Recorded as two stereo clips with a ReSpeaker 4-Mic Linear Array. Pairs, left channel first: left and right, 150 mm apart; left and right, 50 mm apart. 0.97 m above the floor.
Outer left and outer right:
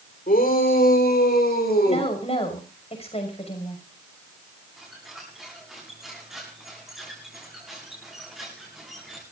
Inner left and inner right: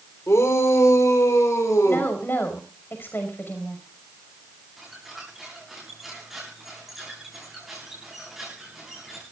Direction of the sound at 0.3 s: 65° left (ahead or behind).